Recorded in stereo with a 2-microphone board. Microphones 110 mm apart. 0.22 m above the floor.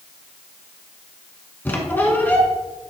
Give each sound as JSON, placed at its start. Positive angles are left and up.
{"t": 1.6, "sound": "a squeak", "side_deg": 15, "distance_m": 1.0}